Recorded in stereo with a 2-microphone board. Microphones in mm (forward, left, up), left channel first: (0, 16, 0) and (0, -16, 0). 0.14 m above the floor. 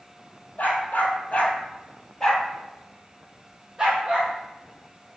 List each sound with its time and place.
0.6 s a dog barking: 60° left (ahead or behind), 1.3 m; by 5.2 s 40° right (ahead or behind), 2.5 m